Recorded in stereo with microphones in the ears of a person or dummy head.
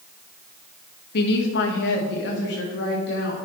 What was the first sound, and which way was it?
A woman speaking, 60° left (ahead or behind).